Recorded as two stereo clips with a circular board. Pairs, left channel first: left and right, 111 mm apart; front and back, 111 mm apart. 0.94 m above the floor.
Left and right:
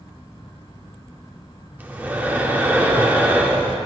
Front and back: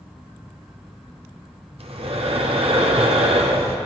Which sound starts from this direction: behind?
Breathing, at 1.8 s.